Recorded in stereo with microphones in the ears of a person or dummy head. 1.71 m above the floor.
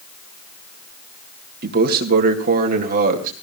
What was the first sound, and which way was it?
A man speaking, 50° right (ahead or behind).